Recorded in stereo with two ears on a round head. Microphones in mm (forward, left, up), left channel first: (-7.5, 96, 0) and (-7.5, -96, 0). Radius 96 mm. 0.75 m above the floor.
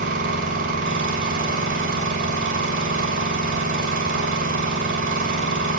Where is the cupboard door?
I don't hear a cupboard door.